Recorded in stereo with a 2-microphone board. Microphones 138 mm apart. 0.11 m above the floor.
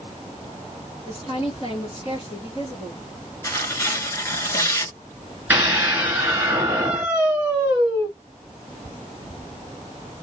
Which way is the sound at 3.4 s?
20° left (ahead or behind).